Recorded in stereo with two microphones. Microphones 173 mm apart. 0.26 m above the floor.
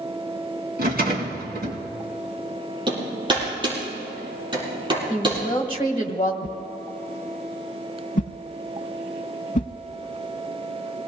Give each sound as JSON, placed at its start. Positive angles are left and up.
{"t": 0.8, "sound": "a rattle", "side_deg": -60, "distance_m": 3.0}
{"t": 2.9, "sound": "hammering", "side_deg": -25, "distance_m": 7.0}
{"t": 5.1, "sound": "a woman speaking", "side_deg": 25, "distance_m": 1.3}
{"t": 6.4, "sound": "a whoosh", "side_deg": 45, "distance_m": 0.5}